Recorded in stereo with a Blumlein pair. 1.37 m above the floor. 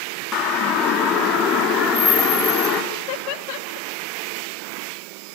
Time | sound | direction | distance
0.3 | a siren | 30° left | 3.5 m
2.9 | laughter | 45° left | 1.0 m